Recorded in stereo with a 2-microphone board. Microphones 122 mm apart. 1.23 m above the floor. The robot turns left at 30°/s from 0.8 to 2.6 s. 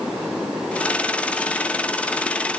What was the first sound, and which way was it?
Only background noise.